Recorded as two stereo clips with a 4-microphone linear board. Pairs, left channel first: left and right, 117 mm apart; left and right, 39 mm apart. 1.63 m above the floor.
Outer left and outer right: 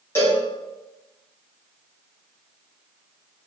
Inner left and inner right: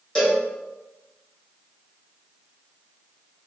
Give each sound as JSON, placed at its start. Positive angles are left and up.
{"t": 0.1, "sound": "a cowbell", "side_deg": 20, "distance_m": 1.7}